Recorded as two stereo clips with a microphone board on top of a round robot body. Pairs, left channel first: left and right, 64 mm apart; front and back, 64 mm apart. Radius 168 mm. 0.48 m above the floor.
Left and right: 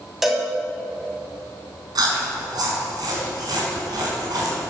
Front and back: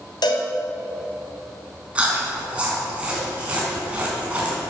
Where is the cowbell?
5° right, 2.5 m.